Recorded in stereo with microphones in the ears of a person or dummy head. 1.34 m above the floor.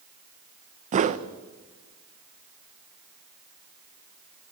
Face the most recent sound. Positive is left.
turn(degrees=-35)  # may be behind; listen again after turning